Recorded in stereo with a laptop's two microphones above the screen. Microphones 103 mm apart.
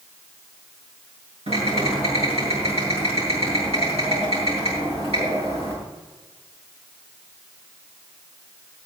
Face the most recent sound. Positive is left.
turn(degrees=-80)